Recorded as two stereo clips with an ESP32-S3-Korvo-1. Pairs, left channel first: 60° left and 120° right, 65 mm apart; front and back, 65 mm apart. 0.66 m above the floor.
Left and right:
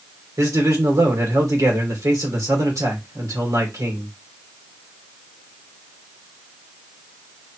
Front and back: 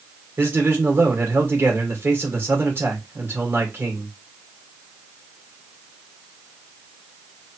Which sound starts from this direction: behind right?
A man speaking, at 0.4 s.